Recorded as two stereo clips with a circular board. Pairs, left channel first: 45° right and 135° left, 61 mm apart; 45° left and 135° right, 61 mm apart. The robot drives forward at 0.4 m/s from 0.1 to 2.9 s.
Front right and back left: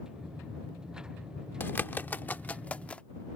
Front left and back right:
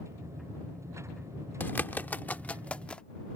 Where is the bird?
Straight ahead; by 3.0 s 5° right.